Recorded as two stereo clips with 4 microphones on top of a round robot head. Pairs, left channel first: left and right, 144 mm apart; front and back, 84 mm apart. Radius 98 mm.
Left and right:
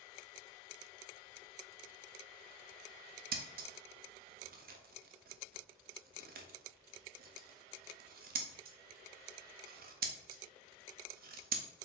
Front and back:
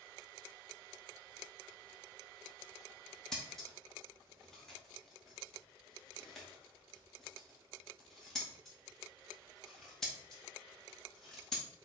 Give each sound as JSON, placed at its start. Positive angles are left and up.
{"t": 3.3, "sound": "scissors", "azimuth_deg": -85, "distance_m": 0.6}